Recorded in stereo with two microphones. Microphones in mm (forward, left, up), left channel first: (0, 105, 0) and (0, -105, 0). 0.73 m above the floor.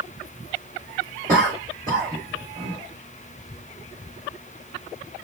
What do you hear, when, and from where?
1.3 s a cough: 30° right (ahead or behind), 1.4 m